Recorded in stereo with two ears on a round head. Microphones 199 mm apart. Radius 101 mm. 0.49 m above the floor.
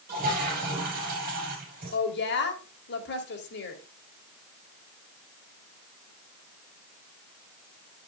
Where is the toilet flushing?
40° right (ahead or behind), 4.5 m.